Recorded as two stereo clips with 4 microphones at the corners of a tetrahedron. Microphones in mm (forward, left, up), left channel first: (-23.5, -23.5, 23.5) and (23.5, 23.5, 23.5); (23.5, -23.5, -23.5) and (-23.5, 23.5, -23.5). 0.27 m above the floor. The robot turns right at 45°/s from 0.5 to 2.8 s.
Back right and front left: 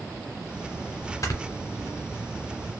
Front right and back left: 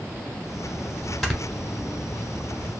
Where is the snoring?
135° right, 0.8 m; by 1.4 s 125° right, 0.8 m.